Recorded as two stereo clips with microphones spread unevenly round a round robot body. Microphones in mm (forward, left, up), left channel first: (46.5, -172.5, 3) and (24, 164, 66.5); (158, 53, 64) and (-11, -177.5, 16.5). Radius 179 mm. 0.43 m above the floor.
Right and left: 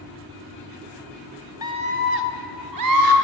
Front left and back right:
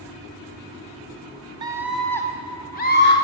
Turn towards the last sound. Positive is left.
turn(degrees=110)